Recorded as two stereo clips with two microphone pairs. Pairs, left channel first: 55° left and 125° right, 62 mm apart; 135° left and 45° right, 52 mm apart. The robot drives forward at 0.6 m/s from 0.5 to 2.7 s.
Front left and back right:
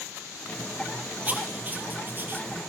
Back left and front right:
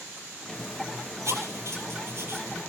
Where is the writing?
65° right, 3.5 m; by 2.5 s 75° right, 3.5 m.